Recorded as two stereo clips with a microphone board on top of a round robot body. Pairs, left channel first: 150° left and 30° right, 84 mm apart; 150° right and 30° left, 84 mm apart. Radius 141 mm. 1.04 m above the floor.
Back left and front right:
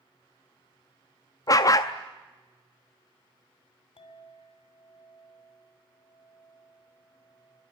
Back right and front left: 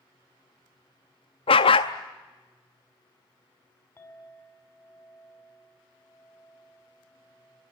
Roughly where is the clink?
Behind left.